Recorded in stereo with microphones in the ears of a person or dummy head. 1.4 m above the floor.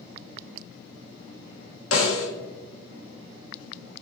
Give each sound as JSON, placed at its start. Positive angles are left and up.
{"t": 1.9, "sound": "a snare drum", "side_deg": 85, "distance_m": 1.6}